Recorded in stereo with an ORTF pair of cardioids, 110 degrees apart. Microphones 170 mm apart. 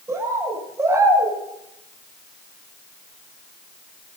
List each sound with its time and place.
0.1 s a bird: 15° right, 7 m